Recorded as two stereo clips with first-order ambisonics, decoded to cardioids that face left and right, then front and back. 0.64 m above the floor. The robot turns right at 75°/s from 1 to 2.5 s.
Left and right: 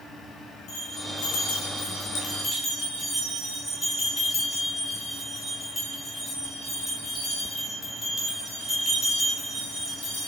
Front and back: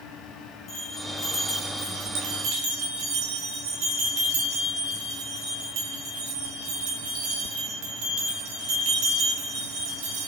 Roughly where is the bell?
Ahead left.